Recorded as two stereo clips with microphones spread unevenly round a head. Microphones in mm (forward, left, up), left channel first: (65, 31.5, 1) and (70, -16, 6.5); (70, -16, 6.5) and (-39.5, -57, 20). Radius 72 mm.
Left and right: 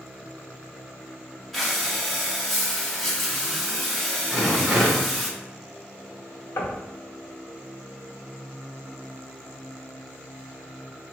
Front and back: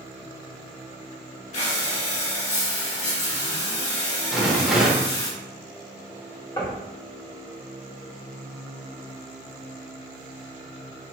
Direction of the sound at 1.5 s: 10° left.